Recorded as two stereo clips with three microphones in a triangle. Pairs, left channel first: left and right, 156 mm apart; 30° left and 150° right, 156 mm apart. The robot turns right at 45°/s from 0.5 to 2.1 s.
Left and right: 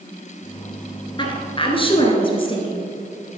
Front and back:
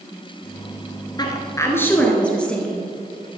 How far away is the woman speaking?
About 1.6 m.